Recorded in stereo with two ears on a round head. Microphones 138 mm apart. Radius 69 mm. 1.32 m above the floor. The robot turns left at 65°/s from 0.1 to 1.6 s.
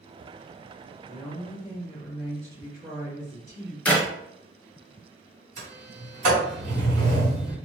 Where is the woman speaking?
15° left, 0.8 m; by 3.8 s 20° right, 0.8 m.